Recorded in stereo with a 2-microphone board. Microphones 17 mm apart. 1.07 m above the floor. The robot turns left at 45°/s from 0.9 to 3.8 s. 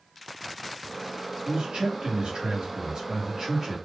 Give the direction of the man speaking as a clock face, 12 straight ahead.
2 o'clock.